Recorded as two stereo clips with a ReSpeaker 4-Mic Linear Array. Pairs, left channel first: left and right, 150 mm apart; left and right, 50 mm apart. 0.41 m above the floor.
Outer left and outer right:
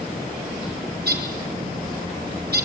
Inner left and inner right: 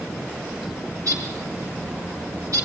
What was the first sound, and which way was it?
A bird, 75° right (ahead or behind).